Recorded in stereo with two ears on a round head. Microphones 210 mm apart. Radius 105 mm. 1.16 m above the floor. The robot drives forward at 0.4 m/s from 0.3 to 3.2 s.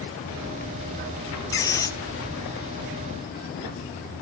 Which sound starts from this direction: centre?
A squeak, at 1.5 s.